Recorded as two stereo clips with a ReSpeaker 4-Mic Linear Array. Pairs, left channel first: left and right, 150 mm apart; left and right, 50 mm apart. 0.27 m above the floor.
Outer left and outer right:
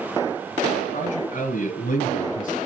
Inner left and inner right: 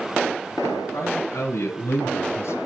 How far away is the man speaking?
About 4 m.